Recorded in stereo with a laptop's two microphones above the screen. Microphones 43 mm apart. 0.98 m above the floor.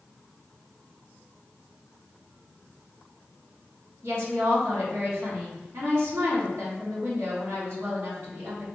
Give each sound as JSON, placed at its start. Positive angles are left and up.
{"t": 4.0, "sound": "a woman speaking", "side_deg": -80, "distance_m": 2.0}